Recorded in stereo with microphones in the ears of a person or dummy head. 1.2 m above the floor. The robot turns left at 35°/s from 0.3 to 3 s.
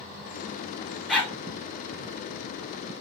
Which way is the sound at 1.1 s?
10° left (ahead or behind).